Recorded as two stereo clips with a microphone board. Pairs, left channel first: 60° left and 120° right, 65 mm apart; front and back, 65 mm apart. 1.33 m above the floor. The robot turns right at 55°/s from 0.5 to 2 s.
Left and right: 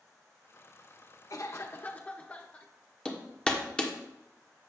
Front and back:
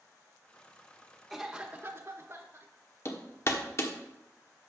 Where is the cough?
90° left, 1.1 m; by 2.7 s 130° left, 1.1 m.